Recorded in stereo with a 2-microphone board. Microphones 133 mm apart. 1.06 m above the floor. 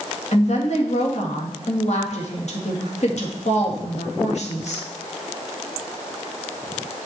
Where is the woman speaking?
60° left (ahead or behind), 1.9 m.